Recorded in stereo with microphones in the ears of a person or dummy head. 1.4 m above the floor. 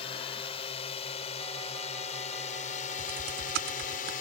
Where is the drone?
25° left (ahead or behind); by 4.2 s 45° left (ahead or behind).